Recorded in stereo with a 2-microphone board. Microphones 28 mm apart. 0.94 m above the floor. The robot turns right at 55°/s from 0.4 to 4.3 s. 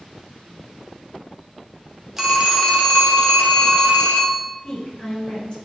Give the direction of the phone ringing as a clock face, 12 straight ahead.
5 o'clock.